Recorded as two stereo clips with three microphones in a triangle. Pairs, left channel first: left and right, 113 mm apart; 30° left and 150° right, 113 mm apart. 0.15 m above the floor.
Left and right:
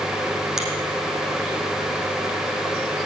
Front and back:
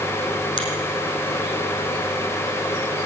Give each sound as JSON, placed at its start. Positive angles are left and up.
{"t": 0.6, "sound": "a finger snap", "azimuth_deg": -5, "distance_m": 5.0}